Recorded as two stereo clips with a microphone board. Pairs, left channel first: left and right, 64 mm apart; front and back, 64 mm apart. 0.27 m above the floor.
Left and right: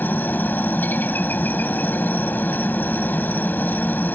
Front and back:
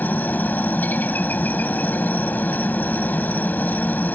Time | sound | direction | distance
0.0 | a helicopter | 45° left | ?